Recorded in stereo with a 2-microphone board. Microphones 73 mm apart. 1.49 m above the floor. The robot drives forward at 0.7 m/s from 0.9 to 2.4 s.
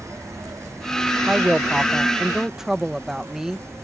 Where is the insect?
45° right (ahead or behind); by 3.8 s 40° right (ahead or behind).